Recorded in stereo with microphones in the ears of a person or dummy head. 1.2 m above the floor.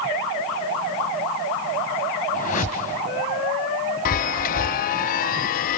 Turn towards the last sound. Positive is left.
turn(degrees=50)  # may be behind; listen again after turning